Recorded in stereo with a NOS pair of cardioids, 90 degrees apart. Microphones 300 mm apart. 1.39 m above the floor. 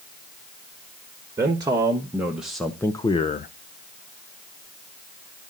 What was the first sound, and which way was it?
A man speaking, 15° right.